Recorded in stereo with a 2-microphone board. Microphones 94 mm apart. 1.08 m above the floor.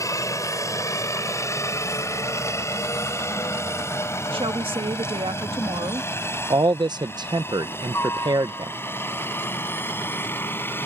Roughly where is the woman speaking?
Right.